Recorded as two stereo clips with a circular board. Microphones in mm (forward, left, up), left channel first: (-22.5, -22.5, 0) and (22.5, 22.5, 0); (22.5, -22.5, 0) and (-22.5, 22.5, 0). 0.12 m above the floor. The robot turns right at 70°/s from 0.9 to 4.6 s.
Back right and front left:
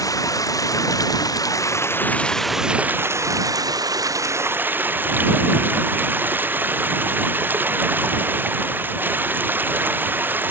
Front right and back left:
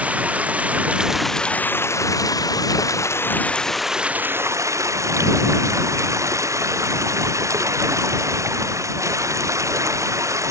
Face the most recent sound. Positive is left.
turn(degrees=100)